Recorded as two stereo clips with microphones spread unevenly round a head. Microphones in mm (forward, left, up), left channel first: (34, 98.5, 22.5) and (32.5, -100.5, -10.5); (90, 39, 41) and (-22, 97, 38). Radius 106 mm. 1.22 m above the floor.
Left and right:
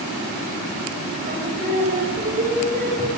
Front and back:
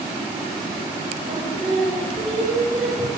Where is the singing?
150° right, 5.5 m.